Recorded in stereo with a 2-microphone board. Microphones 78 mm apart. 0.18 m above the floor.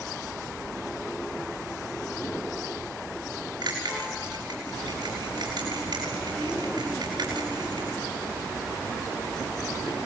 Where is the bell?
60° right (ahead or behind), 6.5 m.